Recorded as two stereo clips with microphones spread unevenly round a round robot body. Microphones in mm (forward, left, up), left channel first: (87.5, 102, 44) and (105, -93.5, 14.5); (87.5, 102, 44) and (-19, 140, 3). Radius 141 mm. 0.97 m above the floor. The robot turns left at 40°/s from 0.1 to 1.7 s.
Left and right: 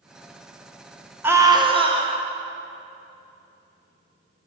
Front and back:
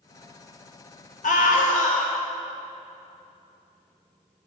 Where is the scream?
10° right, 1.6 m; by 2.2 s 30° right, 1.6 m.